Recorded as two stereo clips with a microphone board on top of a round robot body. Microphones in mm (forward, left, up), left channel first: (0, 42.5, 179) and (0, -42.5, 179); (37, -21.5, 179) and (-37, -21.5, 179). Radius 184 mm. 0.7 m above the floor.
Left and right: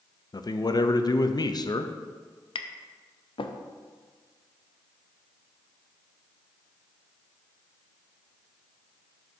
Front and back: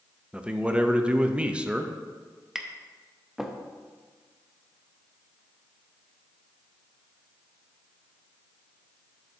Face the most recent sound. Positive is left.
turn(degrees=95)